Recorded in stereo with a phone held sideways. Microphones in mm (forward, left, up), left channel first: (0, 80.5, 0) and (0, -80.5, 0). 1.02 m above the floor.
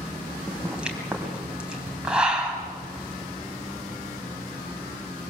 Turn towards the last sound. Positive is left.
turn(degrees=-5)  # may be behind; listen again after turning